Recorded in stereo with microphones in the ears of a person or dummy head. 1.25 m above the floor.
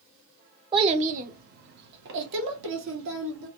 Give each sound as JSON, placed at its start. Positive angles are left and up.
{"t": 0.7, "sound": "a child speaking", "side_deg": -25, "distance_m": 0.6}